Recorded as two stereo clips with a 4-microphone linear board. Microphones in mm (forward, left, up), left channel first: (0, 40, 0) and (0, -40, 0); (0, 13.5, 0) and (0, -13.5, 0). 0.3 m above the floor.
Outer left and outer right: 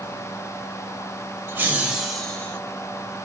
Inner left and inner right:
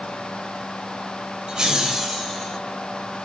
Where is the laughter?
25° right (ahead or behind), 0.9 m; by 2.6 s 15° left (ahead or behind), 1.0 m.